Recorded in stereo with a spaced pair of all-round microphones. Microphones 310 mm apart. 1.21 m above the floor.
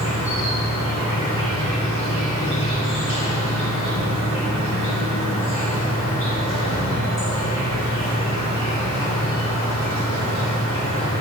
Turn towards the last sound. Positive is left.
turn(degrees=45)  # may be behind; listen again after turning